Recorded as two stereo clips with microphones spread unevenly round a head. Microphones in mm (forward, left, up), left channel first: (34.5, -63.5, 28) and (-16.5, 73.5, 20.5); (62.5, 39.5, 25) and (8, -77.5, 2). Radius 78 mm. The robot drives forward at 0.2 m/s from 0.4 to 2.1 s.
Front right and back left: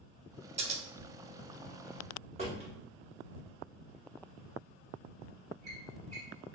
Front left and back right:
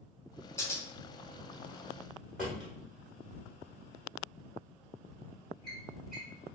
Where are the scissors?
140° left, 0.6 m; by 0.8 s 145° left, 0.6 m.